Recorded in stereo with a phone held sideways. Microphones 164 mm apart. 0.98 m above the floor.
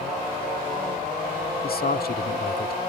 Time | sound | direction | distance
1.6 | a man speaking | 70° left (ahead or behind) | ?